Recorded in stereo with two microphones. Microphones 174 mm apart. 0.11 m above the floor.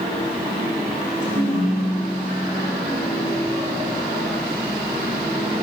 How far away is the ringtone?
About 8 m.